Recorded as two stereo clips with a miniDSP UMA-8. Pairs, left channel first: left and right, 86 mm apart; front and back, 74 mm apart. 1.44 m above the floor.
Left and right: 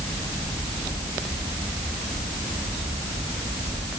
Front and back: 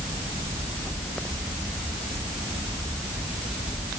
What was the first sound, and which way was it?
Only background noise.